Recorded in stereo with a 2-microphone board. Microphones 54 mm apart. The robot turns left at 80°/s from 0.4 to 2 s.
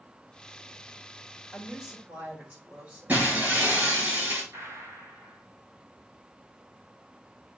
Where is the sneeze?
No sneeze in this recording.